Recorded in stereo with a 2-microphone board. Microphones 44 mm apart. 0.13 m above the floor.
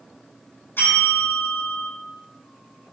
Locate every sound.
0.8 s a bell: 55° left (ahead or behind), 3.5 m